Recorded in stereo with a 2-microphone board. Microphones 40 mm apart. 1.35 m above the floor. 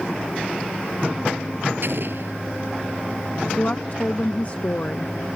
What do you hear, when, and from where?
1.8 s an explosion: 65° right (ahead or behind)
3.5 s a woman speaking: 40° left (ahead or behind)